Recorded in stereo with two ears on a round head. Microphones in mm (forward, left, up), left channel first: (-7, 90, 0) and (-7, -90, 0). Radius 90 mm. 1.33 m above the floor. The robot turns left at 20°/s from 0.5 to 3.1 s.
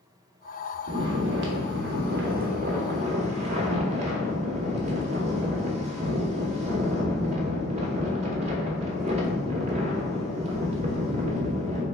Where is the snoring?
100° right, 0.8 m; by 11.8 s 145° right, 0.8 m.